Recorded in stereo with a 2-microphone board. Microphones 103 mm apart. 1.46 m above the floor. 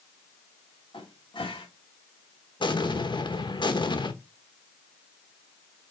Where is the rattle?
I don't hear a rattle.